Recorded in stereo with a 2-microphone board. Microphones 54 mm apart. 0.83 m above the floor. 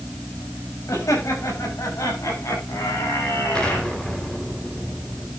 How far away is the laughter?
About 6 m.